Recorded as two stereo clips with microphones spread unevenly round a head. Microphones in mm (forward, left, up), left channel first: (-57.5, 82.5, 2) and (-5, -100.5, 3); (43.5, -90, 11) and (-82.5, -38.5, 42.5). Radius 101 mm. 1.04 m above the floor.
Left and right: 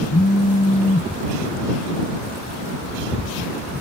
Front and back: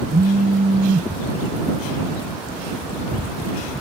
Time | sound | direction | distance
0.1 | a phone buzzing | 140° left | ?